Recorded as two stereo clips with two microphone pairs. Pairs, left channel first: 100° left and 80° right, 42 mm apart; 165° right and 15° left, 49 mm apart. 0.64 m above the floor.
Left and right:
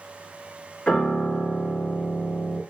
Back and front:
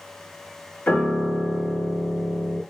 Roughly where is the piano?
Behind left.